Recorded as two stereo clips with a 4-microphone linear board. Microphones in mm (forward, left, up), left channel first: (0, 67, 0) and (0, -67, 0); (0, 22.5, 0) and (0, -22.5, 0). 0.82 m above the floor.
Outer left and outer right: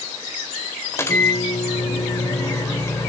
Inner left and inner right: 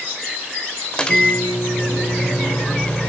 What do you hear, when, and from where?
0.9 s a microwave: 20° left (ahead or behind), 2 m